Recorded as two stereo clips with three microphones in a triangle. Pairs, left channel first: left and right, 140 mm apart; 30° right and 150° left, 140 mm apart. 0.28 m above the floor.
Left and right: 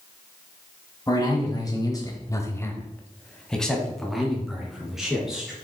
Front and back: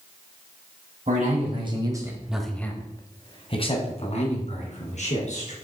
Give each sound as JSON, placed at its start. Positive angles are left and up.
{"t": 1.1, "sound": "a man speaking", "azimuth_deg": 150, "distance_m": 1.9}